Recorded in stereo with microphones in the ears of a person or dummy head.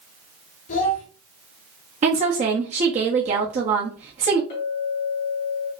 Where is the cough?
No cough in this recording.